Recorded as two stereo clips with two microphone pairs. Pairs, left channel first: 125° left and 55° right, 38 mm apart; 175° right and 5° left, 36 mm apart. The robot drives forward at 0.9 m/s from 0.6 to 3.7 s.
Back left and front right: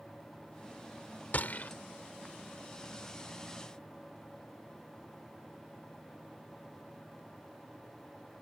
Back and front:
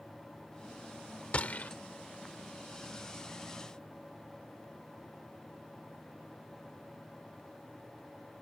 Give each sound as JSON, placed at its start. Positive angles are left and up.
{"t": 1.3, "sound": "a gunshot", "azimuth_deg": 145}